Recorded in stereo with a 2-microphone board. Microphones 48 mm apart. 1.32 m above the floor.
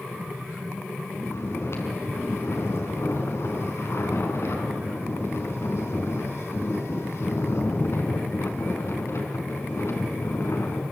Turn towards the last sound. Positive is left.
turn(degrees=70)  # may be behind; listen again after turning